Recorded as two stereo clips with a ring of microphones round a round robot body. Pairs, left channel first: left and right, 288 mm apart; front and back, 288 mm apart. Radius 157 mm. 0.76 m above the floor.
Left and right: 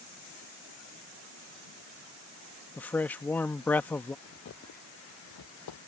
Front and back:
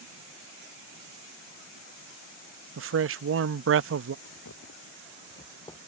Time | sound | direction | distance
2.8 | a man speaking | 175° left | ?
4.2 | footsteps | 40° left | ?